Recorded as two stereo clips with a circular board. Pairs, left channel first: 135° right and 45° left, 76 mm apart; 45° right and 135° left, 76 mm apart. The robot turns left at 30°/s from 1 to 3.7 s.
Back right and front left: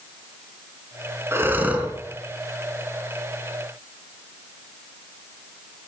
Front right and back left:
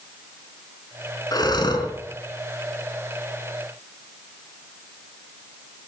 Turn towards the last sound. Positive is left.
turn(degrees=-85)